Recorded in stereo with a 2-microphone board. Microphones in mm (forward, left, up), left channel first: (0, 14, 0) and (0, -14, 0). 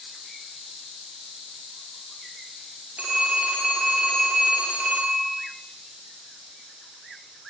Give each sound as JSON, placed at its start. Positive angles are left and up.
{"t": 3.0, "sound": "a phone ringing", "side_deg": -65, "distance_m": 7.0}